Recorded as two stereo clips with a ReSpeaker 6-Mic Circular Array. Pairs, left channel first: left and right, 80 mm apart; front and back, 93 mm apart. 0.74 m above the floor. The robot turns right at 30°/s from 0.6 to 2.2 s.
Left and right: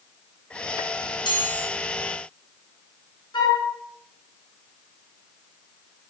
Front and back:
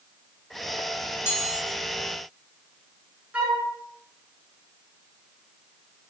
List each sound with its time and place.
1.3 s a chime: 65° left, 9.5 m; by 1.7 s 75° left, 9.5 m
3.3 s a flute: 105° left, 8 m